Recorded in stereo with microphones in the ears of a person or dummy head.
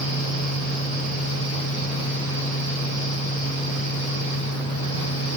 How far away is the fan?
About 1.7 m.